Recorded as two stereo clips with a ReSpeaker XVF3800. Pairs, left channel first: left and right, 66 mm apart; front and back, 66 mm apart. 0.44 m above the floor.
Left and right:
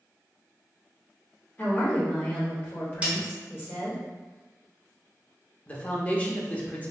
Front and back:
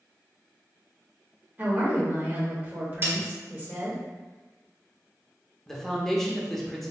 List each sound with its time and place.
1.6 s a woman speaking: 135° left, 1.8 m
3.0 s a snare drum: 150° right, 1.5 m
5.7 s a man speaking: 75° left, 0.8 m